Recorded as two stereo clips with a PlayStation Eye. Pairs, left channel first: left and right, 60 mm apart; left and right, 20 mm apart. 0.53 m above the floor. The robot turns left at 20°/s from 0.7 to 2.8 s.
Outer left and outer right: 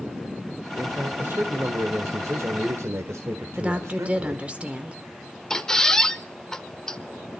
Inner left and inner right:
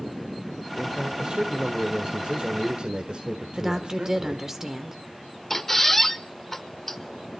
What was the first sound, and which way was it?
A man speaking, 55° right.